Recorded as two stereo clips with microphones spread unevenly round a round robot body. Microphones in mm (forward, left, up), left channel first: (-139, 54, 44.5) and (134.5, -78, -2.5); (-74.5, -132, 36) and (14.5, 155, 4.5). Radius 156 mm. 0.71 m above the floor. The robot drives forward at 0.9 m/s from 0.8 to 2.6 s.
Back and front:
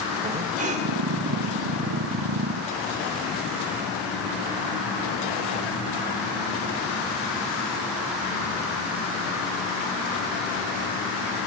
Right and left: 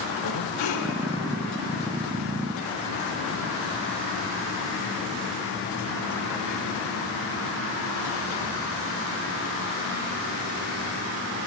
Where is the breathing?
90° right, 2.5 m.